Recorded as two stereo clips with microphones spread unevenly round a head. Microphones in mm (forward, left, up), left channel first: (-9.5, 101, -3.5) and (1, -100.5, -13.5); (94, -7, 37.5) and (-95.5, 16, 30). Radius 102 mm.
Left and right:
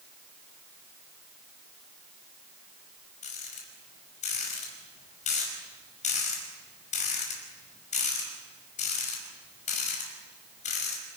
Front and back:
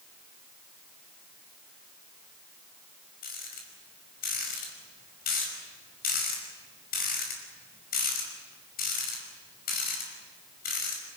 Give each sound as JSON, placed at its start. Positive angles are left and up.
{"t": 3.2, "sound": "a rattle", "azimuth_deg": 35, "distance_m": 5.5}